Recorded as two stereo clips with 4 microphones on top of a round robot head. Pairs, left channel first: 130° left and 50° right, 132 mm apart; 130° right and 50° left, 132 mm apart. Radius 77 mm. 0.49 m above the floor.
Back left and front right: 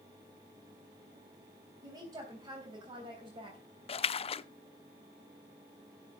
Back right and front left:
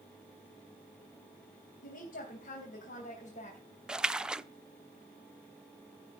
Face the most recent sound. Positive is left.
turn(degrees=130)